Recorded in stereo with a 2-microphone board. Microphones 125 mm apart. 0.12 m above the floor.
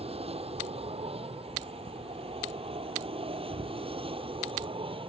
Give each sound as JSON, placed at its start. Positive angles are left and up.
{"t": 0.0, "sound": "an aircraft", "side_deg": -55}